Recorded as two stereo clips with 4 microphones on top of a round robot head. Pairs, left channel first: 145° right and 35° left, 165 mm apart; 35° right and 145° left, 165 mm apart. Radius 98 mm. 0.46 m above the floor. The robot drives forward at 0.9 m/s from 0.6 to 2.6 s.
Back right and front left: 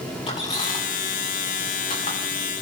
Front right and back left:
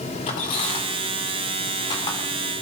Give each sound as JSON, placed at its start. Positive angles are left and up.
{"t": 0.3, "sound": "a squeak", "azimuth_deg": -85, "distance_m": 5.5}